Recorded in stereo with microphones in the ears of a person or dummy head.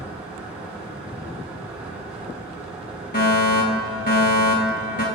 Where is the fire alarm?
40° left (ahead or behind), 2.5 m.